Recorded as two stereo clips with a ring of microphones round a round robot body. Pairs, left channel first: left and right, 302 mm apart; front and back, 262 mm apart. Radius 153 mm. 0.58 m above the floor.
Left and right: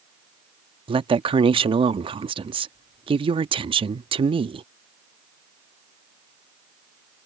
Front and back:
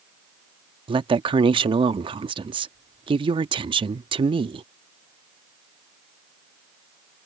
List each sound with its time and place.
0.9 s a woman speaking: 140° right